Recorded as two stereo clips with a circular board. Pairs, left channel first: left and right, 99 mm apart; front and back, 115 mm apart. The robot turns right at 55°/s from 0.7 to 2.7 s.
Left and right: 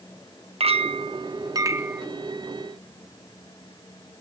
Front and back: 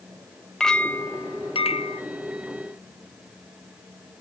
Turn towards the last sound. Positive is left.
turn(degrees=25)